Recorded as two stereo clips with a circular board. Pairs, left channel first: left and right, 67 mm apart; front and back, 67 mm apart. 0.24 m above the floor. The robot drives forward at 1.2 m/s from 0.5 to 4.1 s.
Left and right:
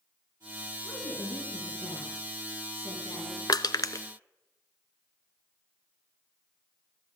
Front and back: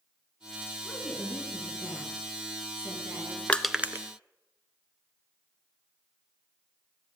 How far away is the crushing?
About 0.6 m.